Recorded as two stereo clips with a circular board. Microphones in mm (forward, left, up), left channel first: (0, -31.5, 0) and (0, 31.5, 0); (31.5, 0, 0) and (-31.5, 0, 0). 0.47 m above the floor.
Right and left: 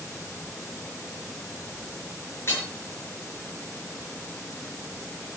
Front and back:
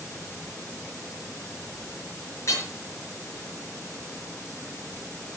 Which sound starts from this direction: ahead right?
Hammering, at 2.5 s.